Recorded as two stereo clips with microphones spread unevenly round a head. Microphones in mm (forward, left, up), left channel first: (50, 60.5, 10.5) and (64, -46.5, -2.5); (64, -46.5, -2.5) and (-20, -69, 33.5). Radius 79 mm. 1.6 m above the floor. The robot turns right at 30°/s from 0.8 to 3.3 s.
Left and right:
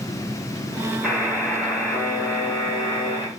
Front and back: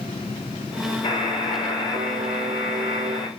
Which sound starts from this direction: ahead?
A buzzer, at 1.0 s.